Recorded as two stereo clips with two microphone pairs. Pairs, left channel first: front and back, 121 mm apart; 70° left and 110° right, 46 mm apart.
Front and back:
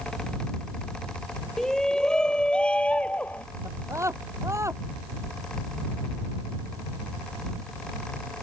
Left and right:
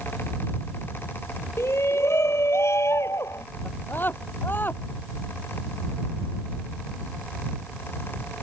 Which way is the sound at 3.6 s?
115° left.